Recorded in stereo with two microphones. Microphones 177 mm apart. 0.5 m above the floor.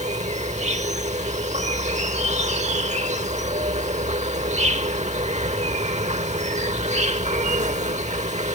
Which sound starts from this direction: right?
An insect, at 0.0 s.